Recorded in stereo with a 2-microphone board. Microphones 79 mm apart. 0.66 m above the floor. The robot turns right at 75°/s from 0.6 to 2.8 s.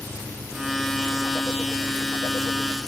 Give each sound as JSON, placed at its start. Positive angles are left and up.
{"t": 0.0, "sound": "an engine running", "azimuth_deg": -50}